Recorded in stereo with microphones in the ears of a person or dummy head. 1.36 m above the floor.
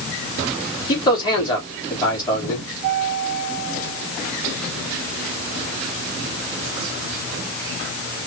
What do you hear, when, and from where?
0.9 s a man speaking: 20° left (ahead or behind), 3.5 m